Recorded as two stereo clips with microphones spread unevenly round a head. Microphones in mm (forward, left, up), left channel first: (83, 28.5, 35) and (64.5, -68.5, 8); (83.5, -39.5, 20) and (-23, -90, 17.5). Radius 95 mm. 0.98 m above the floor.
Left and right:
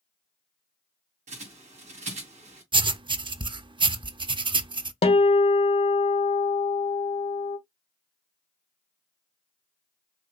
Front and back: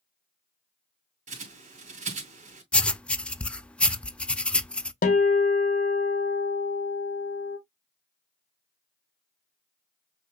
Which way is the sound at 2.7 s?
55° right.